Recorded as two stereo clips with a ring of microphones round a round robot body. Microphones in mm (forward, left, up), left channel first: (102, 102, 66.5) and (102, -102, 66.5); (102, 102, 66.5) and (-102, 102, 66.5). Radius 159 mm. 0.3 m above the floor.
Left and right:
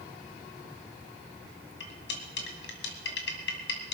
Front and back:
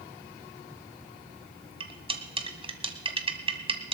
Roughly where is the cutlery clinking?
Behind left.